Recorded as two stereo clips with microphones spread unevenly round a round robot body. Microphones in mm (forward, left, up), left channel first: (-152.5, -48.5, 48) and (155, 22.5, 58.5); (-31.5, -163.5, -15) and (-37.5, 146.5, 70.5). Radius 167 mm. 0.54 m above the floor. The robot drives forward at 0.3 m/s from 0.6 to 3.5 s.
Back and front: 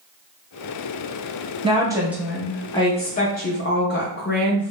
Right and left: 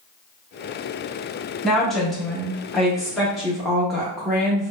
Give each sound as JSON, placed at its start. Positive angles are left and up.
{"t": 1.6, "sound": "a woman speaking", "azimuth_deg": -40, "distance_m": 0.6}